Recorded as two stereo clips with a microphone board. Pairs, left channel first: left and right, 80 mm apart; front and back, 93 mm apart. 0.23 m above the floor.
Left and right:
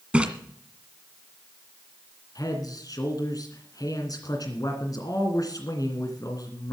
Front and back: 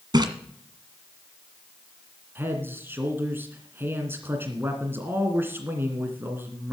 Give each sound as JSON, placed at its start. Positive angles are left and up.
{"t": 0.1, "sound": "a splash", "azimuth_deg": -165, "distance_m": 1.7}
{"t": 2.4, "sound": "a man speaking", "azimuth_deg": 115, "distance_m": 2.0}